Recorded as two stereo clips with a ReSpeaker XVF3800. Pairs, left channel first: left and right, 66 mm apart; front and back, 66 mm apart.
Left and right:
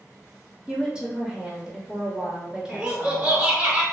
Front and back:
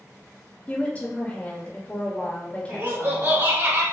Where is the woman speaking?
30° right, 1.1 m.